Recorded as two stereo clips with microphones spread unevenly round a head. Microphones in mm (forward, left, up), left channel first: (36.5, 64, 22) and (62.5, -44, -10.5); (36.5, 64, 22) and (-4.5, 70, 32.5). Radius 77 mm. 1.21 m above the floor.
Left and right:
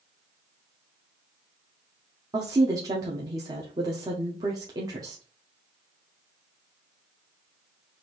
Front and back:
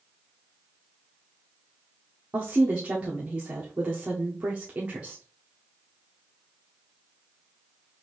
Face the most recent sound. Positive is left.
turn(degrees=-115)